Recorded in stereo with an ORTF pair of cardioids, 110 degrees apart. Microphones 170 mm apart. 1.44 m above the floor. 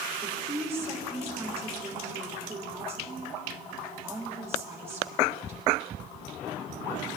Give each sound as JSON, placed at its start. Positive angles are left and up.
{"t": 0.2, "sound": "a woman speaking", "azimuth_deg": -15, "distance_m": 3.5}